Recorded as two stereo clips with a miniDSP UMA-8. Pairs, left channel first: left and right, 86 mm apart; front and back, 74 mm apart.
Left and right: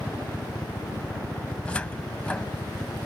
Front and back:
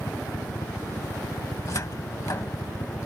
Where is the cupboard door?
20° left.